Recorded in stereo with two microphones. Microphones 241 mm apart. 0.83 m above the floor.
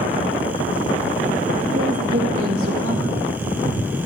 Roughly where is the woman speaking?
Right.